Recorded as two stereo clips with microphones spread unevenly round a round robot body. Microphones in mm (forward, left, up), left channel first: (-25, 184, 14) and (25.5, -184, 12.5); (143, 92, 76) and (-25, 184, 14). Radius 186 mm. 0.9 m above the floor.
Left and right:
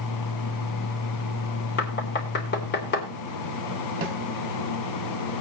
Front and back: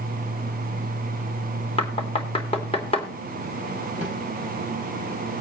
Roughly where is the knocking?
Ahead left.